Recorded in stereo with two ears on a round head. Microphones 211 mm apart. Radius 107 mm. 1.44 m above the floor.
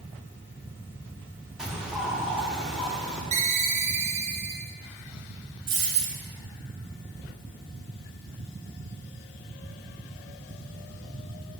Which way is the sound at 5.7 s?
55° right (ahead or behind).